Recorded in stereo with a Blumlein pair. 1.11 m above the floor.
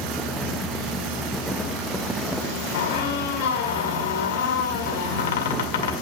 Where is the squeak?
55° left, 1.9 m.